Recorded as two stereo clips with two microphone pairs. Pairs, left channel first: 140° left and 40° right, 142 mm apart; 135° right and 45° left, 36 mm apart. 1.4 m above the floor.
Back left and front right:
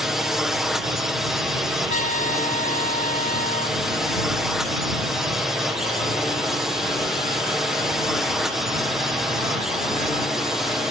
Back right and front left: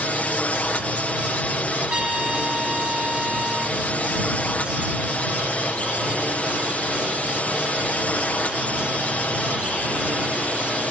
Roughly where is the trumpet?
Left.